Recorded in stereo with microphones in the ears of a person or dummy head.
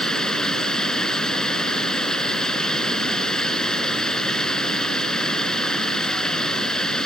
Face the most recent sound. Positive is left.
turn(degrees=5)  # may be behind; listen again after turning